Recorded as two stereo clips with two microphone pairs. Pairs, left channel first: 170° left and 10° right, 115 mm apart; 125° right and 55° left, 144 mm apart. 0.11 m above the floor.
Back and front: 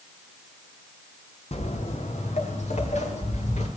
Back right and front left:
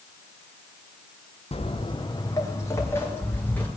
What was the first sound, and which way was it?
Footsteps, 170° right.